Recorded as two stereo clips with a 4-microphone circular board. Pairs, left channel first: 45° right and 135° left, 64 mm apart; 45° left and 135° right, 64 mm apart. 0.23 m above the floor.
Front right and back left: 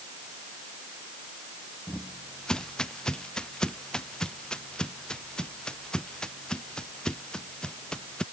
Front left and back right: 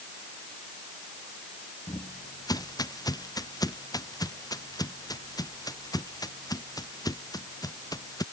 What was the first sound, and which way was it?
Footsteps, 35° left.